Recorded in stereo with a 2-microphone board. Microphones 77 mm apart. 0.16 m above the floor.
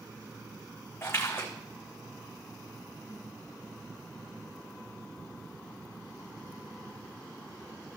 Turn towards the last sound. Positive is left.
turn(degrees=30)  # may be behind; listen again after turning